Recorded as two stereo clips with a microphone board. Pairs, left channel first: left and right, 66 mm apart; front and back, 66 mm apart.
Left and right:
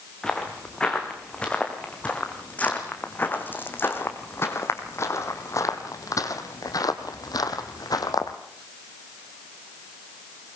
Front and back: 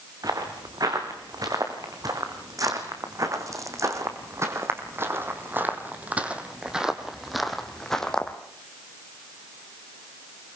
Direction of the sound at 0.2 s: 170° left.